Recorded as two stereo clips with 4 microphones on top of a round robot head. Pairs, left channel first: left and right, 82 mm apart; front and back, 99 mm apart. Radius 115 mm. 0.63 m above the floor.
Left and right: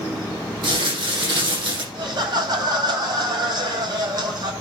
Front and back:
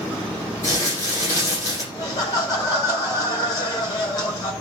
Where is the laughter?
55° right, 4 m.